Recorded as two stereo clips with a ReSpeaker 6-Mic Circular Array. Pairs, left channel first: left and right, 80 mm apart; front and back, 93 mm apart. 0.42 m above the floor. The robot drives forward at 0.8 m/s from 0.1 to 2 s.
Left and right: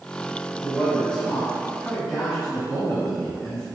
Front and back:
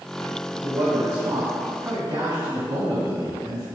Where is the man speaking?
160° left, 1.2 m; by 3.6 s 170° left, 2 m.